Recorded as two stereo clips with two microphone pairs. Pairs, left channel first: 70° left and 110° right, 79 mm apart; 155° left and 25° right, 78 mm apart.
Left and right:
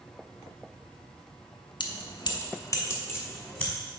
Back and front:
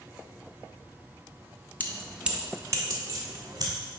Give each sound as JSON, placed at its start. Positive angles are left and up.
{"t": 1.8, "sound": "keys jangling", "azimuth_deg": 85, "distance_m": 0.7}